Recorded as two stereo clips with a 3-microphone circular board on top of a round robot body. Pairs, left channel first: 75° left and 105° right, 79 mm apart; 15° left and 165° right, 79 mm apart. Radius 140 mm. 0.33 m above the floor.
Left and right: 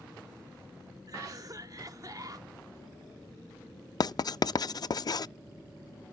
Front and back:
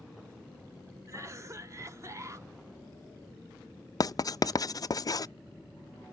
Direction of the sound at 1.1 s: 125° right.